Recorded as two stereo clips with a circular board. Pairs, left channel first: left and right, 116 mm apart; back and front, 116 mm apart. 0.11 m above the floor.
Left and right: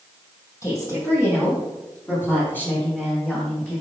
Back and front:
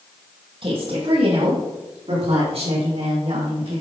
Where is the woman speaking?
30° left, 3.5 m; by 3.8 s 15° left, 5 m.